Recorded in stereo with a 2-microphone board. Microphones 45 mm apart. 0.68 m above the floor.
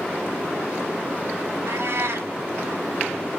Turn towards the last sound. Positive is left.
turn(degrees=-70)  # may be behind; listen again after turning